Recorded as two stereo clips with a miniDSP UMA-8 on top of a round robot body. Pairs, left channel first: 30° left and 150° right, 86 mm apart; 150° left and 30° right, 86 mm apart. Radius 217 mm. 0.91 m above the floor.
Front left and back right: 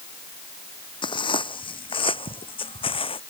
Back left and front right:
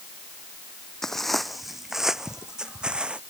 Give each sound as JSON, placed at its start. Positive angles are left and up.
{"t": 1.0, "sound": "footsteps", "azimuth_deg": 65}